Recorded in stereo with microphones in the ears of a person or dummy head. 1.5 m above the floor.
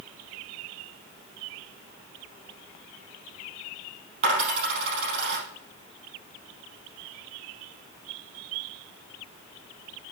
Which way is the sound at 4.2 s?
45° right (ahead or behind).